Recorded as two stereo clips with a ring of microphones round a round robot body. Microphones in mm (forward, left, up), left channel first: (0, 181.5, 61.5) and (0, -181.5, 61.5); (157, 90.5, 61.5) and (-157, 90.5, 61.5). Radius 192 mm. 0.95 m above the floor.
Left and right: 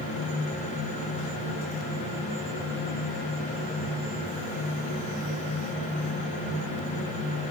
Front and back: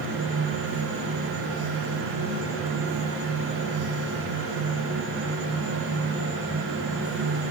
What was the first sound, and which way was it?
Only background noise.